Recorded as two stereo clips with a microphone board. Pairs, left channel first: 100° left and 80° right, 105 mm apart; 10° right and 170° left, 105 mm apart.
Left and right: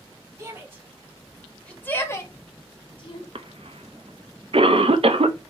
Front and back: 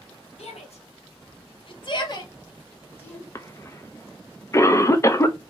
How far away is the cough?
About 0.6 m.